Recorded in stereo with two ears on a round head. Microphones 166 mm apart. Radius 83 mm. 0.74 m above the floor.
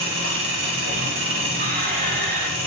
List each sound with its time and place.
0.0 s an engine running: 70° right (ahead or behind), 0.9 m
1.6 s a squeak: 40° right (ahead or behind), 0.7 m